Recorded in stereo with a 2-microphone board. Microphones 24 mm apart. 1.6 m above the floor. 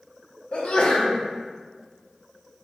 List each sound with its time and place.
0.5 s a sneeze: 50° left (ahead or behind), 0.6 m